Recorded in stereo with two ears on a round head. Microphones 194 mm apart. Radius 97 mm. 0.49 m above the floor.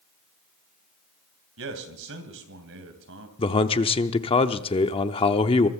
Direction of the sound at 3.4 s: 25° left (ahead or behind).